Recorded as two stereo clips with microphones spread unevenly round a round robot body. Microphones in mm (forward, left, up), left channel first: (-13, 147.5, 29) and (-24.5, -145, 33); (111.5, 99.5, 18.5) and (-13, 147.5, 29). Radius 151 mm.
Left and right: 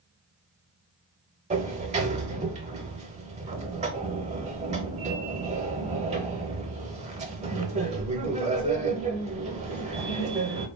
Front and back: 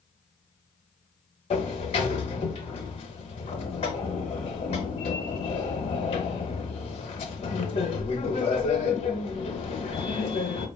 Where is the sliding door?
40° right, 0.7 m.